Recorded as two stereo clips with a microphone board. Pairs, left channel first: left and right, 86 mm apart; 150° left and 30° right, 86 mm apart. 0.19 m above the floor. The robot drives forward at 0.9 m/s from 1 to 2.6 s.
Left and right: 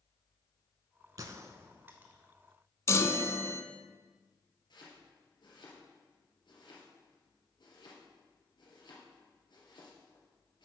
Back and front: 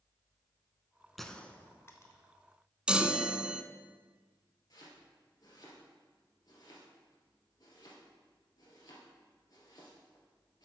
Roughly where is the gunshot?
Behind right.